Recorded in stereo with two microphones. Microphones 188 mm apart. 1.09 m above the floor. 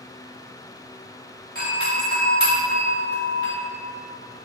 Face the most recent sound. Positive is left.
turn(degrees=50)  # may be behind; listen again after turning